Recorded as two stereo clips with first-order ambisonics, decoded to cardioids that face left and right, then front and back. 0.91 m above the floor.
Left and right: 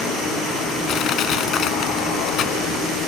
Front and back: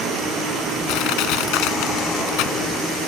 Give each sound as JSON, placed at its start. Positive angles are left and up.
{"t": 0.9, "sound": "crushing", "azimuth_deg": 30}